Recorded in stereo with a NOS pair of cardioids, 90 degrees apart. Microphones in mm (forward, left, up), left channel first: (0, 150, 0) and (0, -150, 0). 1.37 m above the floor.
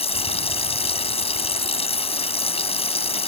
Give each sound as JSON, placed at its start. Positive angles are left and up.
{"t": 0.0, "sound": "running water", "azimuth_deg": 20}